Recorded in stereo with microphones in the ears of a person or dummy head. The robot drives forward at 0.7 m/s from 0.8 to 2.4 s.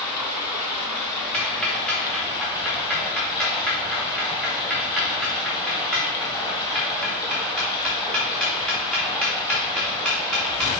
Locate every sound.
0.0 s running water: 15° left (ahead or behind), 2.5 m; by 10.8 s 20° left (ahead or behind), 2.0 m
1.3 s ticking: 5° left (ahead or behind), 1.6 m; by 10.7 s centre (ahead or behind), 2.5 m